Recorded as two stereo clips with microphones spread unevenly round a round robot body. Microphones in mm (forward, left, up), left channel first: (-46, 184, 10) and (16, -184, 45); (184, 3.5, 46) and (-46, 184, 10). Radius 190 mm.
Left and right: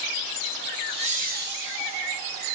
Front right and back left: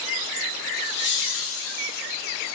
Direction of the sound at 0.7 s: Straight ahead.